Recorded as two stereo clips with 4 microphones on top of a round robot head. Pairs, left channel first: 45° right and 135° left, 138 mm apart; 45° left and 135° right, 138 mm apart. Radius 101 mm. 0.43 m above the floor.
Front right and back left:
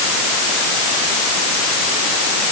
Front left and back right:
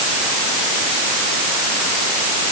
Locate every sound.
Only background noise.